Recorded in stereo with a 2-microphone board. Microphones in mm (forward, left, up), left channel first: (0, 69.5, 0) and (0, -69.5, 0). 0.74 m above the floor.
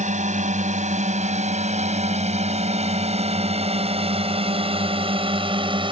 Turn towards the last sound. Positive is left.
turn(degrees=-40)  # may be behind; listen again after turning